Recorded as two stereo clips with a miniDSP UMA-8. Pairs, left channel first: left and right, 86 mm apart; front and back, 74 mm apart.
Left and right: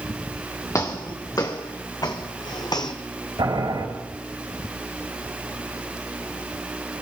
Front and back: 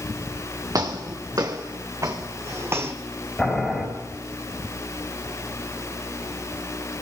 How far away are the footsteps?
About 2 m.